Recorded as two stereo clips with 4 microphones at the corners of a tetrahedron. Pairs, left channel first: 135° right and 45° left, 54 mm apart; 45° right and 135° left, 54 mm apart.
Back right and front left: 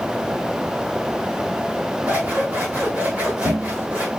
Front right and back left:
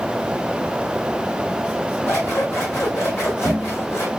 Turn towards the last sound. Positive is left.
turn(degrees=-10)